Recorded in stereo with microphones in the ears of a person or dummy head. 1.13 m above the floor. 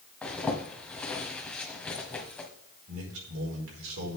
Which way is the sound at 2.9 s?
75° right (ahead or behind).